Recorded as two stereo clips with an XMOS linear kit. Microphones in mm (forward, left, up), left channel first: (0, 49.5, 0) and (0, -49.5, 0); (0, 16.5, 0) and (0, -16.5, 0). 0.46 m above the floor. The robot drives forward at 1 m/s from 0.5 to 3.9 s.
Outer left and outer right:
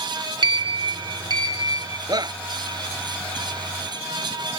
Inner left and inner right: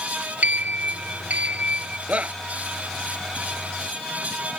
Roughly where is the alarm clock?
I don't hear an alarm clock.